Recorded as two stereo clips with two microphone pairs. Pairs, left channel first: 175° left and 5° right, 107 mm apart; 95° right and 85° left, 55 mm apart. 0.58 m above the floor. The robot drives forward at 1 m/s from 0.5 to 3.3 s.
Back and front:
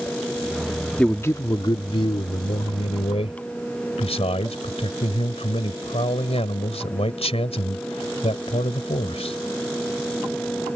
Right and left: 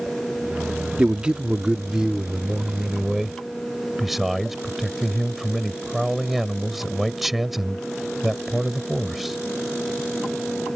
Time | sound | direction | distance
1.0 | a man speaking | 105° left | ?